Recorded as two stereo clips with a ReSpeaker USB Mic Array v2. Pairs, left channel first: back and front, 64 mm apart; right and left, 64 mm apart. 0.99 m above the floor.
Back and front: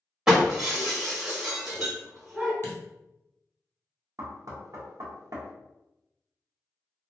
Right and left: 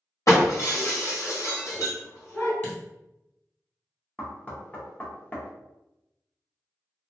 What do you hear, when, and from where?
0.3 s breaking glass: 75° right, 1.2 m
2.6 s a dropped coin: 140° right, 1.4 m
4.2 s knocking: 25° right, 0.6 m